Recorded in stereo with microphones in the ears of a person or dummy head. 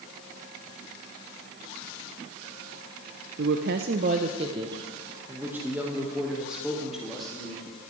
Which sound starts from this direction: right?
A woman speaking, at 3.4 s.